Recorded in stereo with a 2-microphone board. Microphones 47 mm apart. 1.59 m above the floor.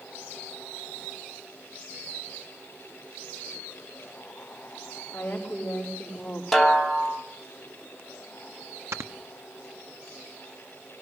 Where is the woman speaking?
30° left (ahead or behind), 4 m.